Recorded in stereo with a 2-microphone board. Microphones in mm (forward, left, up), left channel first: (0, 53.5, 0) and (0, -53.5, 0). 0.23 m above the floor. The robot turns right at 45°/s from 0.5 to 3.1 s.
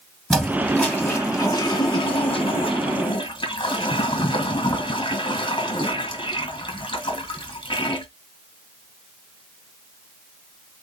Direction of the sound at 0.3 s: Straight ahead.